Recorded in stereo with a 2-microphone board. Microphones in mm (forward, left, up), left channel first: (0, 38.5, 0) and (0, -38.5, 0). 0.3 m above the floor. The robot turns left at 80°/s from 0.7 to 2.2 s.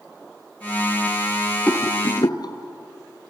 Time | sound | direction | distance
1.7 | a rattle | 15° left (ahead or behind) | 1.8 m